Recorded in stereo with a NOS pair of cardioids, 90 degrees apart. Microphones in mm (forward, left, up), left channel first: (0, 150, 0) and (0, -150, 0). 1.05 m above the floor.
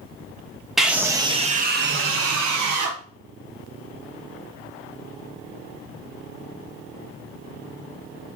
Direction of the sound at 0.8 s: Straight ahead.